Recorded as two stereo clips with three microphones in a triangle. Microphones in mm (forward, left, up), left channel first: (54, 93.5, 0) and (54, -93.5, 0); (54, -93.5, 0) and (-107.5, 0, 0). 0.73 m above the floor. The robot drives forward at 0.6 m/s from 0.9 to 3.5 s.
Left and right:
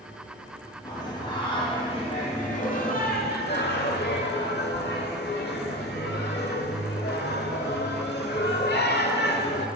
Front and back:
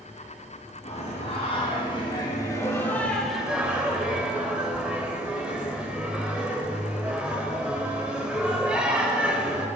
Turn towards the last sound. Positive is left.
turn(degrees=65)